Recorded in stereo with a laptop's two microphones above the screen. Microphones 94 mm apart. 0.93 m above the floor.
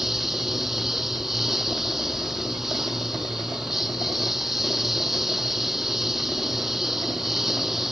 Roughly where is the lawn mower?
Centre.